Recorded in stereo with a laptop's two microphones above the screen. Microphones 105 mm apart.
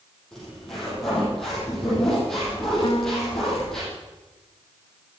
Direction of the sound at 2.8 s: 60° left (ahead or behind).